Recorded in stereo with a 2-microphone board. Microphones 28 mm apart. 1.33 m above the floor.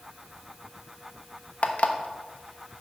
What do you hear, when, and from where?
1.6 s an alarm clock: 60° left (ahead or behind), 1.0 m